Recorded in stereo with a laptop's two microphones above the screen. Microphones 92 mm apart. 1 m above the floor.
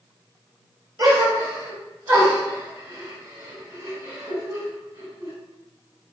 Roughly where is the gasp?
Right.